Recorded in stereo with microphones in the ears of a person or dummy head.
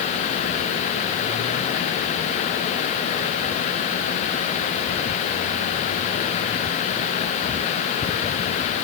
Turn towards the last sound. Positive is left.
No sound to turn to.